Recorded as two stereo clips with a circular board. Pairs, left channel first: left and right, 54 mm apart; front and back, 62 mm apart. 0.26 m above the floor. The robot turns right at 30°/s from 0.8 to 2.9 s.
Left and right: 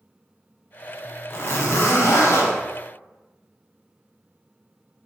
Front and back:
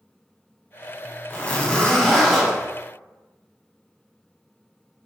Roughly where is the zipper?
Ahead left.